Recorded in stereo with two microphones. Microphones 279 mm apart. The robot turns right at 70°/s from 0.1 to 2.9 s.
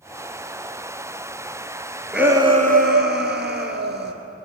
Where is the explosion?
I don't hear an explosion.